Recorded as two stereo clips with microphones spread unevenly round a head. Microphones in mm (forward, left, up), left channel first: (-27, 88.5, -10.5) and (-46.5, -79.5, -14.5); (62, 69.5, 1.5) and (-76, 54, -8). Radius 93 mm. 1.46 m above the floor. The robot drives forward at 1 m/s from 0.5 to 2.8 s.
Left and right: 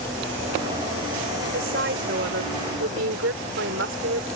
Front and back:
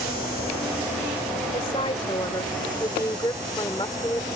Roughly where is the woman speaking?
Ahead right.